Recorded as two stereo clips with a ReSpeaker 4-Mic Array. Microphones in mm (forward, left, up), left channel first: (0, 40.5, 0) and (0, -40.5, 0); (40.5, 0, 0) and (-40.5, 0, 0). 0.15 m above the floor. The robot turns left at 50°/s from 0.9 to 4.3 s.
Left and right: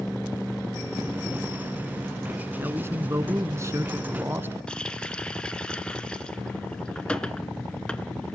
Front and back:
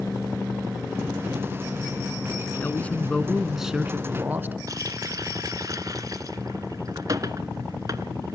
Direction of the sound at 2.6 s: 45° right.